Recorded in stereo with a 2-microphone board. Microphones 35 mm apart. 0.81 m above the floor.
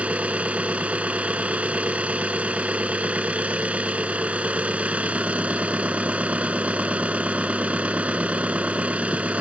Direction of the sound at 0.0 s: 40° right (ahead or behind).